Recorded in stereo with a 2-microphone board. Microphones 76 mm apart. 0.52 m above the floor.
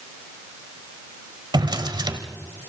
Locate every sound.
1.5 s a drawer: 70° right (ahead or behind), 1.4 m